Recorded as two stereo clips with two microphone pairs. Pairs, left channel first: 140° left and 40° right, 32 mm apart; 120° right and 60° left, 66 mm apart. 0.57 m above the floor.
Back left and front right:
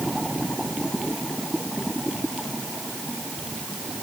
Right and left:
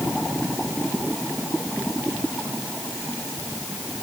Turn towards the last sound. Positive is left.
No sound to turn to.